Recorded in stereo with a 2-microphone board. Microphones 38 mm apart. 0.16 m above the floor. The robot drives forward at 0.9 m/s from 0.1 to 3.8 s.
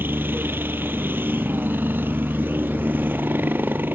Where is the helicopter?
65° right (ahead or behind).